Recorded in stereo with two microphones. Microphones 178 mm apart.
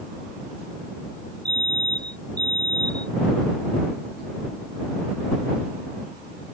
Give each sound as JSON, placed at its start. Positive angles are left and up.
{"t": 1.4, "sound": "a fire alarm", "side_deg": -65}